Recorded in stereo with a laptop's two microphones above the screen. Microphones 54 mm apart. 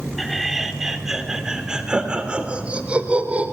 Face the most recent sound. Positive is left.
turn(degrees=-25)  # may be behind; listen again after turning